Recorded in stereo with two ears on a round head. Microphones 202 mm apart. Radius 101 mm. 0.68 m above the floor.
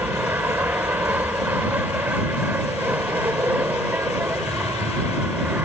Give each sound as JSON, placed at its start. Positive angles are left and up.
{"t": 0.0, "sound": "an aircraft", "side_deg": -10}